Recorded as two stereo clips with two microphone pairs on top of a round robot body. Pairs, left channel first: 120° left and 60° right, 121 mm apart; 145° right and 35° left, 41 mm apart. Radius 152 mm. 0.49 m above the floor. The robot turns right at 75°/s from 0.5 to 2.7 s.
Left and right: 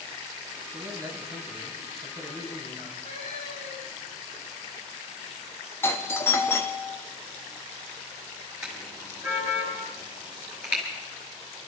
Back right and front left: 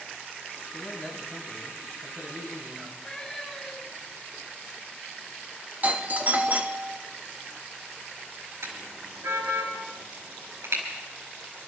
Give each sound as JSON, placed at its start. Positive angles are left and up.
{"t": 0.7, "sound": "a man speaking", "azimuth_deg": -75, "distance_m": 5.5}
{"t": 3.0, "sound": "a cat meowing", "azimuth_deg": 140, "distance_m": 9.5}
{"t": 5.8, "sound": "a doorbell", "azimuth_deg": 60, "distance_m": 1.8}
{"t": 8.6, "sound": "a car horn", "azimuth_deg": 25, "distance_m": 5.0}